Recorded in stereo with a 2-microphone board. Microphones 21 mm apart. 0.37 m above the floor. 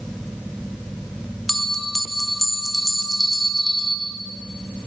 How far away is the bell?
About 0.7 m.